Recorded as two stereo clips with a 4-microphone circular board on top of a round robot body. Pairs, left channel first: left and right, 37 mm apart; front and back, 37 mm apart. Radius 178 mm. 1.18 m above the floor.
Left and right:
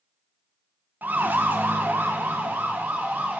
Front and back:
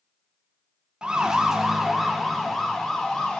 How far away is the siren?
About 2.5 m.